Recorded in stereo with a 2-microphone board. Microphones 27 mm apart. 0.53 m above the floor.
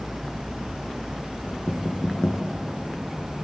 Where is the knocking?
60° left (ahead or behind), 4 m.